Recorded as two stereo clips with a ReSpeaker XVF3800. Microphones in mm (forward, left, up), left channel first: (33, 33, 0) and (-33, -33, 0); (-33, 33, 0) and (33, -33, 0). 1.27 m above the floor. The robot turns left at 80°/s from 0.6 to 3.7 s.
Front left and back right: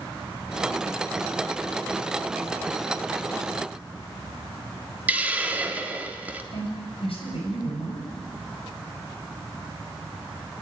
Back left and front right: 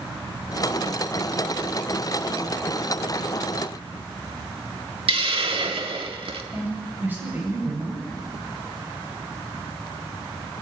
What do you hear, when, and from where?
5.1 s a hiss: 60° right, 1.7 m
6.5 s a woman speaking: 25° left, 7.5 m